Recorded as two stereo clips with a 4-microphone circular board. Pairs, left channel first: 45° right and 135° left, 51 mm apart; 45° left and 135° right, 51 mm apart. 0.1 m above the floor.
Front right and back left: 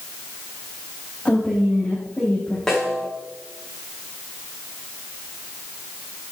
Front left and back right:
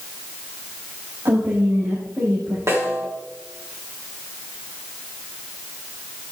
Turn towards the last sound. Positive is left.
turn(degrees=-130)